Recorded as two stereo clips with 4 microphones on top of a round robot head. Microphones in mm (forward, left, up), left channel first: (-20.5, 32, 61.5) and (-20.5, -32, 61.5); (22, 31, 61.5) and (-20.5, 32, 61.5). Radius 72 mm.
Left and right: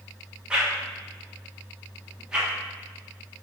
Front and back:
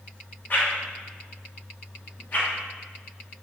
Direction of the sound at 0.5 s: 15° right.